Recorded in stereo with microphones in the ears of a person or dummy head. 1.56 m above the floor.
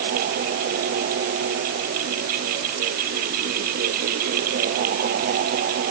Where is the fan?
60° right (ahead or behind).